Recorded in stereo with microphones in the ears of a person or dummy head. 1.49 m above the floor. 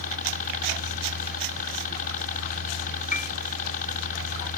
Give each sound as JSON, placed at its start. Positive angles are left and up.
{"t": 0.0, "sound": "a helicopter", "side_deg": 45}
{"t": 3.1, "sound": "a piano", "side_deg": 45}